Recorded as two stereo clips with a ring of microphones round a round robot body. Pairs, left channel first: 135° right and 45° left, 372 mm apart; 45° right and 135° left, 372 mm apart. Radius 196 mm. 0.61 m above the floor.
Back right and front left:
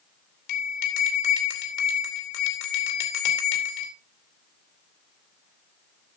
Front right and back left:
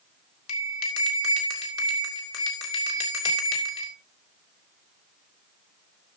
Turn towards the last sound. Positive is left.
turn(degrees=-95)